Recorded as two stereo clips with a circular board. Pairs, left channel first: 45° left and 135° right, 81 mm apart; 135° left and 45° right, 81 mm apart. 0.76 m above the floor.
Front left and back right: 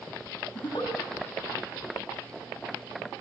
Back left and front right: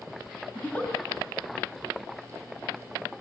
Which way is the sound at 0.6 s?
60° left.